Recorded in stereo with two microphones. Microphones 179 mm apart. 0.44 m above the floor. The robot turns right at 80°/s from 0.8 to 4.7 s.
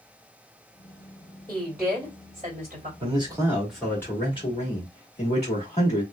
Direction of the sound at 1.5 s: 160° left.